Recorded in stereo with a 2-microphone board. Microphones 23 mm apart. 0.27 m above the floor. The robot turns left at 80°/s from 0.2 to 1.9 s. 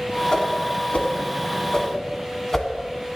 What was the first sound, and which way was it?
A whoosh, 30° left (ahead or behind).